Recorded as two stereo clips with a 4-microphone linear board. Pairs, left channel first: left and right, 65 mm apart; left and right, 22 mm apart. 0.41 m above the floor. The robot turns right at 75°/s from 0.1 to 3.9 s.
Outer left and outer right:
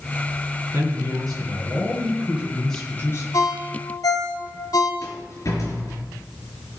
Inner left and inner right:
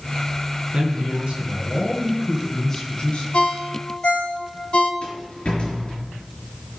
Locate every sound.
0.7 s a man speaking: 140° right, 4.5 m; by 3.2 s 50° left, 4.5 m
3.3 s a ringtone: 65° left (ahead or behind), 1.9 m
5.0 s a rattle: 60° left (ahead or behind), 4 m